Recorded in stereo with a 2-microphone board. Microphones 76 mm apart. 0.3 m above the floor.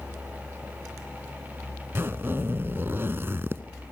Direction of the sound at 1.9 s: 35° right (ahead or behind).